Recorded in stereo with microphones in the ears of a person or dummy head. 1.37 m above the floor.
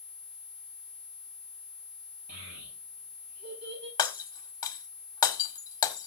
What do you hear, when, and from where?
2.3 s a child speaking: 45° right (ahead or behind), 8.5 m; by 3.9 s 50° right (ahead or behind), 8 m
4.0 s breaking glass: 20° left (ahead or behind), 1.5 m